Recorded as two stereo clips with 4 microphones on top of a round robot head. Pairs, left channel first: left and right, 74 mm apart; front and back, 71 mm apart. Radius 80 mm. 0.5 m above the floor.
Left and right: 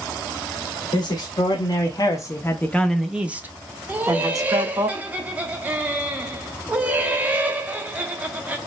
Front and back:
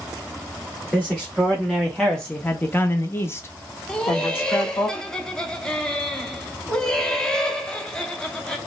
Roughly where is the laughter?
Ahead right.